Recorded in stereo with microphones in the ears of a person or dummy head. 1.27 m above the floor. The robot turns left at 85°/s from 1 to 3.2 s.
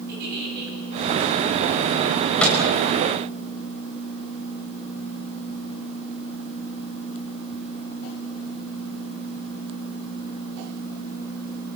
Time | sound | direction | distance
0.1 | a giggle | 60° right (ahead or behind) | 10 m
2.1 | a microwave | 15° right (ahead or behind) | 5.5 m